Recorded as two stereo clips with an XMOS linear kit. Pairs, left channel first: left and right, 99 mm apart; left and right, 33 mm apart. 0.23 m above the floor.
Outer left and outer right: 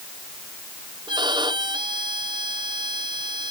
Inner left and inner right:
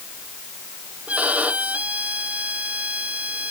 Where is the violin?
50° right (ahead or behind).